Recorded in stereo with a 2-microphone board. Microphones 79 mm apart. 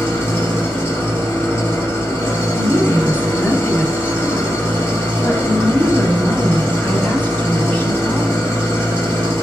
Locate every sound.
0.0 s an engine running: 35° left (ahead or behind), 1.7 m
2.5 s a woman speaking: 20° left (ahead or behind), 1.2 m